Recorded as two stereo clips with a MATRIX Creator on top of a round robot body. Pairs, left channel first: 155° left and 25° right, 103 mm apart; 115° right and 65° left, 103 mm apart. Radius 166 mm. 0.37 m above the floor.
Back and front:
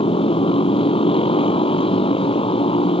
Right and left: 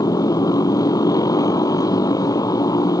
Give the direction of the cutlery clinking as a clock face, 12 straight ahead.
No cutlery clinking in this recording.